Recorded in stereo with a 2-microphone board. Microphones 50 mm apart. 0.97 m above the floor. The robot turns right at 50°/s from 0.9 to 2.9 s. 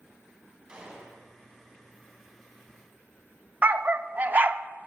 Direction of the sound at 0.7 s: 20° right (ahead or behind).